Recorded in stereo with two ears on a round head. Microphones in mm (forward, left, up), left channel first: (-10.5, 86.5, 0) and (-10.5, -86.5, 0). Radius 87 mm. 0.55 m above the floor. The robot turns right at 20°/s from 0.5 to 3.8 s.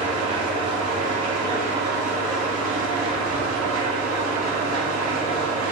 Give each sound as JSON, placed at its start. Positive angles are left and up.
{"t": 0.0, "sound": "an engine running", "azimuth_deg": -145, "distance_m": 1.0}